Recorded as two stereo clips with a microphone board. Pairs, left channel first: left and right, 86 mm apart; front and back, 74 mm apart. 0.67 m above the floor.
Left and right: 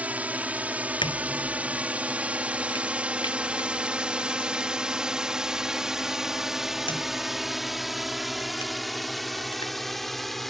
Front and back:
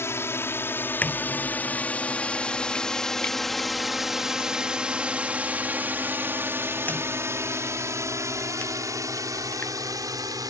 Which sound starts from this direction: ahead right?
A drone, at 0.0 s.